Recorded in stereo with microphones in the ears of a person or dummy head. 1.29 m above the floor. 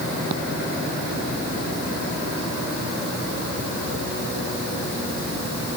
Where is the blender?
No blender in this recording.